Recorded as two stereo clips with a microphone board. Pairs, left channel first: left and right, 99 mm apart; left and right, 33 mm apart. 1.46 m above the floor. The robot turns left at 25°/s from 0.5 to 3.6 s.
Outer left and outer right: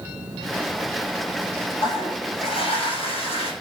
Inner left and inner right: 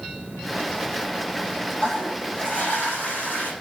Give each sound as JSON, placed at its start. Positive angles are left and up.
{"t": 1.8, "sound": "a toilet flushing", "azimuth_deg": 130, "distance_m": 9.0}